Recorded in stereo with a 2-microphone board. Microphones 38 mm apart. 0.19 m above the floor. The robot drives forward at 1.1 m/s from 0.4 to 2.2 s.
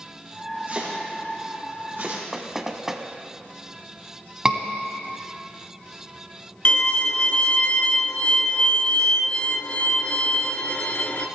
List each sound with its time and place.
0.7 s chopping: 35° right (ahead or behind), 4.5 m; by 2.2 s 55° right (ahead or behind), 3.5 m
2.3 s knocking: 10° right (ahead or behind), 0.9 m
4.5 s a scream: 20° right (ahead or behind), 1.4 m
6.7 s a violin: 40° left (ahead or behind), 0.7 m